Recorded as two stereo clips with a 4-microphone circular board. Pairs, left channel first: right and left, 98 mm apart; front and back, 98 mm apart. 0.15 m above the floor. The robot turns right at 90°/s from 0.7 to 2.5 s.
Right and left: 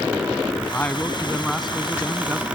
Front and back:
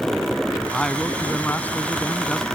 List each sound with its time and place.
0.7 s a man speaking: 85° right; by 2.4 s 70° left